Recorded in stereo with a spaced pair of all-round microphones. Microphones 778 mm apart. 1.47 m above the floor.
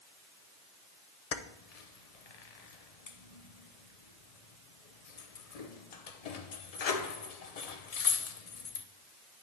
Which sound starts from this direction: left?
Keys jangling, at 1.3 s.